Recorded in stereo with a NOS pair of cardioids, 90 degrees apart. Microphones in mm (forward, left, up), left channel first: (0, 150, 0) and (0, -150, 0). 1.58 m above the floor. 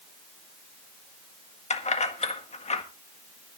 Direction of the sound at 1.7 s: 25° left.